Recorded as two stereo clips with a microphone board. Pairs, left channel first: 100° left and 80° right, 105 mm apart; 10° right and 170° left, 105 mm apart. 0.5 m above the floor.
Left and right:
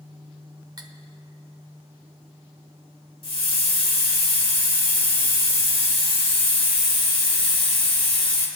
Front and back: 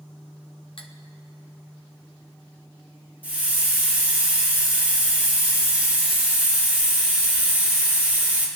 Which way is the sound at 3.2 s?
100° left.